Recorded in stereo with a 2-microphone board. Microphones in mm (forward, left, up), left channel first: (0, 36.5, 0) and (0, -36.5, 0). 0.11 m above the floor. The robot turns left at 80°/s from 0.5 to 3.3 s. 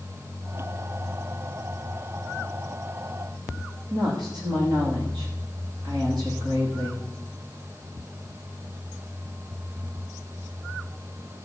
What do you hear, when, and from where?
3.9 s a woman speaking: 70° right (ahead or behind), 7.5 m